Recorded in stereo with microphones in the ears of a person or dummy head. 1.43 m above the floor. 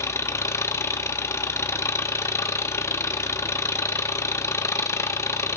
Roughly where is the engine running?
Centre.